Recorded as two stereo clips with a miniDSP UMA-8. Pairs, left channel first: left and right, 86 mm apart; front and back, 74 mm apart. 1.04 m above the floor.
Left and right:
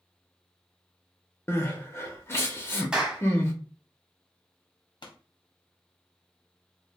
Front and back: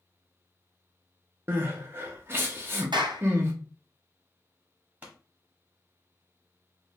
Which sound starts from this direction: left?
A pop, at 5.0 s.